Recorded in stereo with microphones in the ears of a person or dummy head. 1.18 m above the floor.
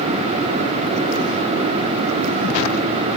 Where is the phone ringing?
No phone ringing in this recording.